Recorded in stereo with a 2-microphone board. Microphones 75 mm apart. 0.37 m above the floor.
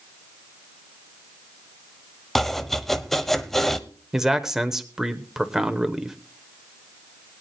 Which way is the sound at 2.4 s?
5° left (ahead or behind).